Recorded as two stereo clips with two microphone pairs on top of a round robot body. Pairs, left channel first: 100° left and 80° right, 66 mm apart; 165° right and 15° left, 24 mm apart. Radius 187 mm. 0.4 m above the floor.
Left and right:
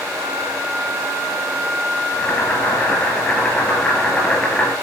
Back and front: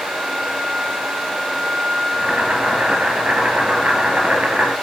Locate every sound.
2.1 s boiling: 25° left, 5 m